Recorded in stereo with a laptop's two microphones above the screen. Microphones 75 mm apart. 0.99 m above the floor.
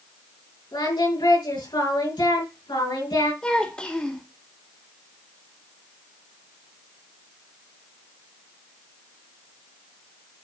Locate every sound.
0.7 s singing: 80° left, 4.5 m
3.4 s a child speaking: 10° left (ahead or behind), 1.6 m